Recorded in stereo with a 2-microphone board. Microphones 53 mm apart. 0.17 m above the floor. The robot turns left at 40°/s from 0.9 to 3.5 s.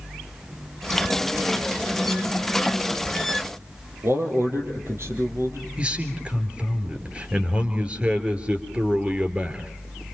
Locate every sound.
4.0 s a man speaking: 55° right (ahead or behind), 4.5 m
5.8 s a man speaking: 25° right (ahead or behind), 3 m